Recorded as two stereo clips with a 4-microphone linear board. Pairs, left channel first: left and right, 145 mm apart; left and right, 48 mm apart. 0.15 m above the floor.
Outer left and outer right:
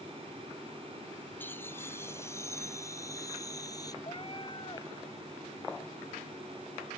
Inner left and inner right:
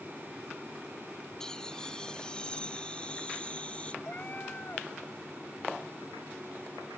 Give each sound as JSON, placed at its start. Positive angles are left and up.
{"t": 1.4, "sound": "laughter", "side_deg": 15}
{"t": 4.0, "sound": "a cat meowing", "side_deg": 35}